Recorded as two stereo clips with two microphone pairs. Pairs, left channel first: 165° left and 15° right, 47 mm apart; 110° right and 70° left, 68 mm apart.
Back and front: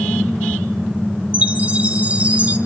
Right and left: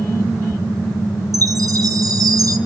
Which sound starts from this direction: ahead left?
A chime, at 1.3 s.